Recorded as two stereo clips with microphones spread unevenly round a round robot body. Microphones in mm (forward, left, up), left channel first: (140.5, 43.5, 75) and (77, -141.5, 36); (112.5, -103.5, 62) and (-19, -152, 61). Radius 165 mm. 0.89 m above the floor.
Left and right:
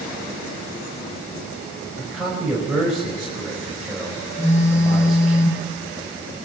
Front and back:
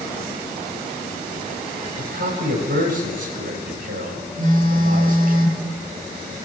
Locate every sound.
2.0 s a man speaking: 165° left, 6 m
4.4 s a phone buzzing: 140° left, 9.5 m